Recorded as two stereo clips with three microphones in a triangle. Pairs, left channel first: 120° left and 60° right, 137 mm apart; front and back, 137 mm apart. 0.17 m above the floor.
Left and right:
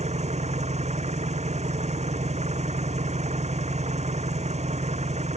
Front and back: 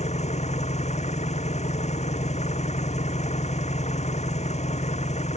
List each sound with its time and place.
0.0 s an engine running: 30° right